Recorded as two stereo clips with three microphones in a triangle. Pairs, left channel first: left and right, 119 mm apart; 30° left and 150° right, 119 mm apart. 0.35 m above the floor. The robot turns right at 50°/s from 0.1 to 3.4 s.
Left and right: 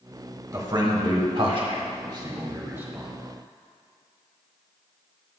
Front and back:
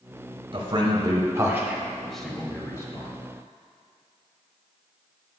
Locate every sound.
0.5 s a man speaking: 140° right, 1.2 m; by 3.1 s 10° right, 1.2 m